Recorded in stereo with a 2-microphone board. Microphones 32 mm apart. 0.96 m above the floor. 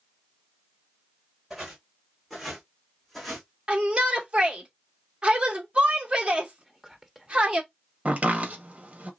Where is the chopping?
45° right (ahead or behind), 1.8 m.